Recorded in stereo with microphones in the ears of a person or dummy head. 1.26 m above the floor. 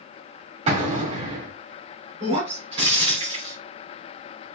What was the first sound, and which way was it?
An explosion, 40° right (ahead or behind).